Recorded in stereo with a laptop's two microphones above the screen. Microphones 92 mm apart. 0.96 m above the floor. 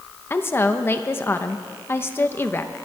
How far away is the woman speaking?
About 0.7 m.